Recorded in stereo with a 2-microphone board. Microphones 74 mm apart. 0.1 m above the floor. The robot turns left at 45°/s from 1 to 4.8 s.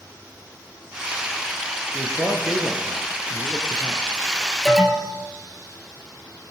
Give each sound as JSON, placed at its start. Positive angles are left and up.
{"t": 1.9, "sound": "a man speaking", "azimuth_deg": -40, "distance_m": 1.5}
{"t": 4.7, "sound": "an alarm", "side_deg": 0, "distance_m": 2.5}